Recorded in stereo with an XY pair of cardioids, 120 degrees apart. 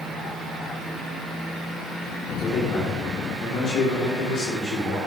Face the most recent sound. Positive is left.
turn(degrees=55)